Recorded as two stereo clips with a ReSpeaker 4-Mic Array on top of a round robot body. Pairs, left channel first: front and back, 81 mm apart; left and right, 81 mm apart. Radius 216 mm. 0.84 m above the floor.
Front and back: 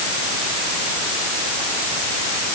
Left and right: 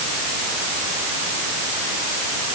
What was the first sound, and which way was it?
Only background noise.